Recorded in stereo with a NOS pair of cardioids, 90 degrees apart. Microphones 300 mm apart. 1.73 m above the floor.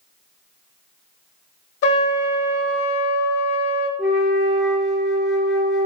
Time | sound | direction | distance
1.8 | a trumpet | 50° left | 1.0 m
4.0 | a flute | straight ahead | 0.8 m